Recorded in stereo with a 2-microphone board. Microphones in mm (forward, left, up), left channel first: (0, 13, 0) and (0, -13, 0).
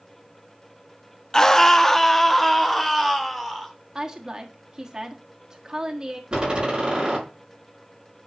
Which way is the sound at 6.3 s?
30° right (ahead or behind).